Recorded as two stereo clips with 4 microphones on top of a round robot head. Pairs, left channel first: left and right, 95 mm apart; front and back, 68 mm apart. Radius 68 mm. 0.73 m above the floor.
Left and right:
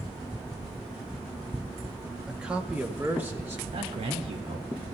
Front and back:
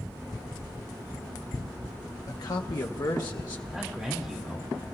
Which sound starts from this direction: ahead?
A man speaking, at 2.3 s.